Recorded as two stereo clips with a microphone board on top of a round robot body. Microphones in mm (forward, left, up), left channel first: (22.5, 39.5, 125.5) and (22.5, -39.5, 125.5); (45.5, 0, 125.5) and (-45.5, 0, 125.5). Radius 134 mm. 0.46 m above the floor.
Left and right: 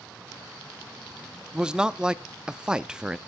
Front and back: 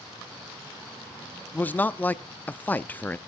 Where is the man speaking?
30° right, 0.8 m.